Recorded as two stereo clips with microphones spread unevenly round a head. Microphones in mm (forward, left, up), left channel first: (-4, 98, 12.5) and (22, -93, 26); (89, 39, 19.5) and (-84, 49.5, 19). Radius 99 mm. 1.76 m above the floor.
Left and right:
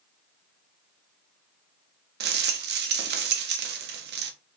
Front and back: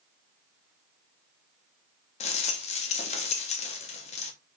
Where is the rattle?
60° right, 1.3 m.